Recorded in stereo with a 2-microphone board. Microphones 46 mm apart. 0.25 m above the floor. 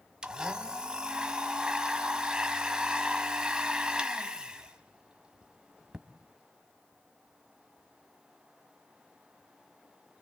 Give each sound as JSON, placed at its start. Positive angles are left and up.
{"t": 0.2, "sound": "a blender", "side_deg": -15, "distance_m": 1.3}